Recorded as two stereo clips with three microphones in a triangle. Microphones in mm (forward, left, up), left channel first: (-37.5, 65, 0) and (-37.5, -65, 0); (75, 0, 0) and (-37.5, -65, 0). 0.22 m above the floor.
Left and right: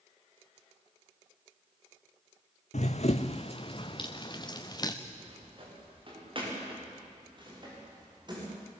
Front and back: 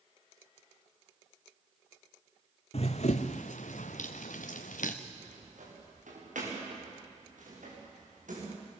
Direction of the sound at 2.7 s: 65° left.